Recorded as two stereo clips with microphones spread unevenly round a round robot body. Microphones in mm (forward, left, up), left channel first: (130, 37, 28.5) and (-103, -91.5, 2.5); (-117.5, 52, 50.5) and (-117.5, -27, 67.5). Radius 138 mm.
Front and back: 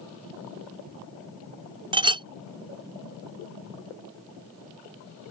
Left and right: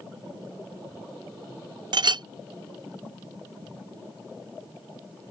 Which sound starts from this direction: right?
A clink, at 1.9 s.